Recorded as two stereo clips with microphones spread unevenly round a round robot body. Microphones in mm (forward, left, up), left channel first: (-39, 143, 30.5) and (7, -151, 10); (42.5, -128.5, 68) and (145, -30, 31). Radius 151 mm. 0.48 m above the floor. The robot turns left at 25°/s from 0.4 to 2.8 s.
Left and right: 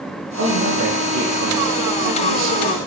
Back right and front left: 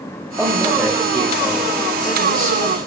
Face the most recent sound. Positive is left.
turn(degrees=-95)